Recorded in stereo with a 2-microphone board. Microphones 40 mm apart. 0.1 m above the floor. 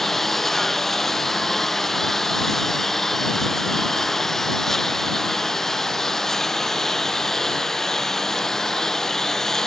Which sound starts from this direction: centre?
A lawn mower, at 0.0 s.